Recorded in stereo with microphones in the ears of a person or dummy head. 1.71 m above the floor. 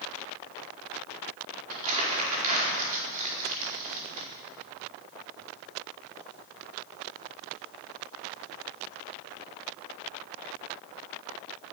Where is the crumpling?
40° right (ahead or behind), 4.5 m.